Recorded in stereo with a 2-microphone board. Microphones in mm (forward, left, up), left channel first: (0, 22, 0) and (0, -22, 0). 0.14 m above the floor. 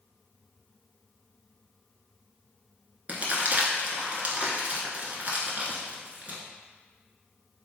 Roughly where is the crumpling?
Right.